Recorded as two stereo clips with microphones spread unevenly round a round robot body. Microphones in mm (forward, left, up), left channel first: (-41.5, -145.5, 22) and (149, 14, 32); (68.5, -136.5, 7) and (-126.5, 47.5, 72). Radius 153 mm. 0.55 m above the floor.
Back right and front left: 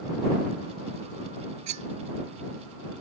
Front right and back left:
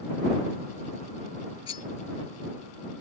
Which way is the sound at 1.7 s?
30° left.